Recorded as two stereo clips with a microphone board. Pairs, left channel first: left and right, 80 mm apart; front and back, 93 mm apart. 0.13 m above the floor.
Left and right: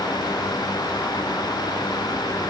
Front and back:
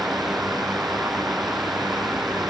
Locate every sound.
Only background noise.